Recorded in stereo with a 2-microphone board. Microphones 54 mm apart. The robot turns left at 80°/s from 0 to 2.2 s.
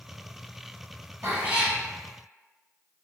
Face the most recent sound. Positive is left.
turn(degrees=145)